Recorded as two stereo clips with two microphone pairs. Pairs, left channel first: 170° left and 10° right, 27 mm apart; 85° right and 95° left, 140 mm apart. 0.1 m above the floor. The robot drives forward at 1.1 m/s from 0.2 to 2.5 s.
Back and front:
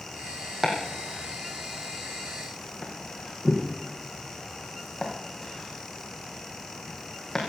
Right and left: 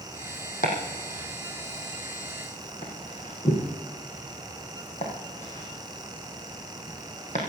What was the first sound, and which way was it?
Chopping, 90° right.